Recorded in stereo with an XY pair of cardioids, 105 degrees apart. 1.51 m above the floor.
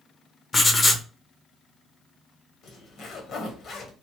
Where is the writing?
30° left, 0.7 m.